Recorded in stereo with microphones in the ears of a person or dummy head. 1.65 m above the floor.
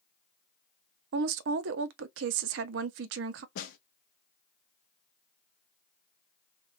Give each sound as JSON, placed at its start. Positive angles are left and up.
{"t": 1.1, "sound": "a woman speaking", "side_deg": -75, "distance_m": 0.5}
{"t": 3.5, "sound": "a snare drum", "side_deg": 60, "distance_m": 0.6}